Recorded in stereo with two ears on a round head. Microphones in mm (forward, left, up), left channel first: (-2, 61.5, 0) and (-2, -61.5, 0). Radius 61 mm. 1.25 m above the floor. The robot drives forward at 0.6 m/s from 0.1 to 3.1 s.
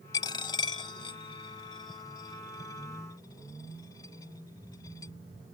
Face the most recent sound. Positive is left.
turn(degrees=25)  # may be behind; listen again after turning